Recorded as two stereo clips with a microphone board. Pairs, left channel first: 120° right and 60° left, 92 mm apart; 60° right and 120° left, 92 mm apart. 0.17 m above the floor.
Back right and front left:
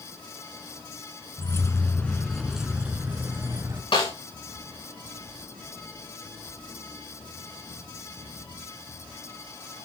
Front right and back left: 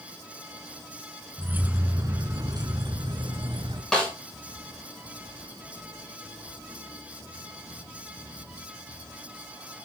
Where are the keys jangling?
170° right, 1.5 m; by 3.8 s 115° left, 2 m.